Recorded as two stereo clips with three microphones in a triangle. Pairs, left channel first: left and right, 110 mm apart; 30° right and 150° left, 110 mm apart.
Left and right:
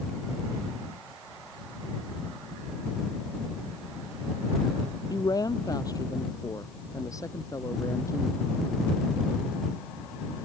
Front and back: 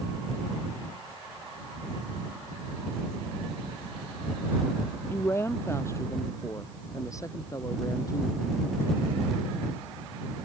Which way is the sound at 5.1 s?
35° left.